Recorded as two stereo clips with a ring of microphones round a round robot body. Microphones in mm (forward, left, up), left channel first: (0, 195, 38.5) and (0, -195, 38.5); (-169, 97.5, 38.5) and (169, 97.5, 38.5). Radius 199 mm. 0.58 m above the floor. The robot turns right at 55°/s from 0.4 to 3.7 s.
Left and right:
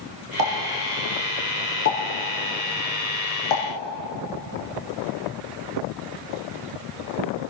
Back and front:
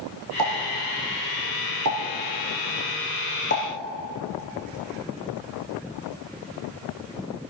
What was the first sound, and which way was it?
A pop, 50° right.